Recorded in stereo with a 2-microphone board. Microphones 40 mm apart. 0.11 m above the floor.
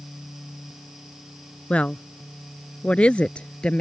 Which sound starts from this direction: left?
A woman speaking, at 1.7 s.